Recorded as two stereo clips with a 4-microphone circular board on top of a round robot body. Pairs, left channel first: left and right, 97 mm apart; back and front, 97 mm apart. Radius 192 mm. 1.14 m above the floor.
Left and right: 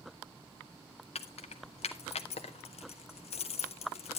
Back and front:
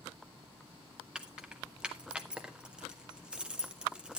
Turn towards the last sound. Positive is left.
turn(degrees=80)